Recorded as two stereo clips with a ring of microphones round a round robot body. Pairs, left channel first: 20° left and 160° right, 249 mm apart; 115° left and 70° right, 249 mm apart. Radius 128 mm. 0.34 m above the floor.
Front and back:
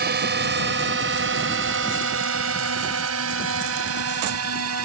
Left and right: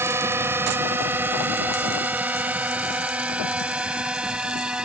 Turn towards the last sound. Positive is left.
turn(degrees=-155)